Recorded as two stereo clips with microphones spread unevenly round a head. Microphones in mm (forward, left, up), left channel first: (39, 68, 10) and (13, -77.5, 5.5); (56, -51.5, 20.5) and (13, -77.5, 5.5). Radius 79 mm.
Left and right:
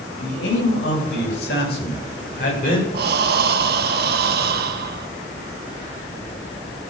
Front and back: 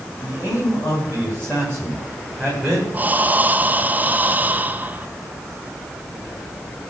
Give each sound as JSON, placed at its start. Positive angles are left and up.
{"t": 0.2, "sound": "a man speaking", "azimuth_deg": 100, "distance_m": 10.0}
{"t": 2.9, "sound": "breathing", "azimuth_deg": -85, "distance_m": 1.7}